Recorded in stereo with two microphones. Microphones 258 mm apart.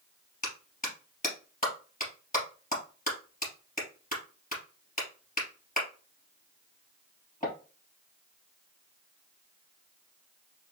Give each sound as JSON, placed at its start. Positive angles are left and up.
{"t": 0.4, "sound": "a clap", "side_deg": 30, "distance_m": 3.0}